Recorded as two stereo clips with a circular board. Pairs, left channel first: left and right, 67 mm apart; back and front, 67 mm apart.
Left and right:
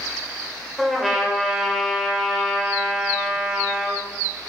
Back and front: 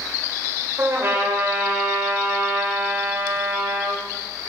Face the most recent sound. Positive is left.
turn(degrees=-5)